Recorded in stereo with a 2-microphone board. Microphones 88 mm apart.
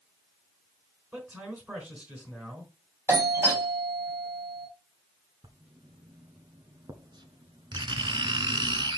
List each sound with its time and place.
1.1 s a man speaking: 20° right (ahead or behind), 4 m
3.1 s a doorbell: 30° right (ahead or behind), 2.5 m
5.4 s writing: 60° right (ahead or behind), 1.0 m